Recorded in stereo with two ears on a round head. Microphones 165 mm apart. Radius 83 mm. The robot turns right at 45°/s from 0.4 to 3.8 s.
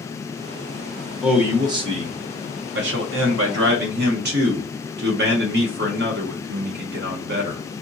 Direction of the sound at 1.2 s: 175° right.